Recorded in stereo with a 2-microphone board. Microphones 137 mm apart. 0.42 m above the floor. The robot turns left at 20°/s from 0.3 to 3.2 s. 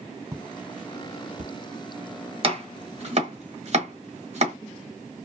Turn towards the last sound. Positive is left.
turn(degrees=-50)  # may be behind; listen again after turning